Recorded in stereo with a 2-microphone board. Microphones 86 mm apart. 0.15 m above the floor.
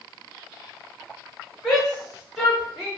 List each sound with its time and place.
1.6 s a shout: 5° left (ahead or behind), 1.5 m; by 2.9 s 10° right (ahead or behind), 2.0 m